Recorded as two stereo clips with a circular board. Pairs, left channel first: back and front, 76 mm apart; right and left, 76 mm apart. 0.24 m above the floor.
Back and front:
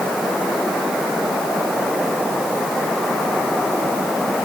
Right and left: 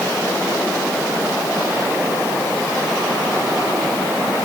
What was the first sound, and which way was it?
Only background noise.